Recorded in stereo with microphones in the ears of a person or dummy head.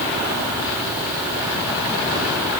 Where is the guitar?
No guitar in this recording.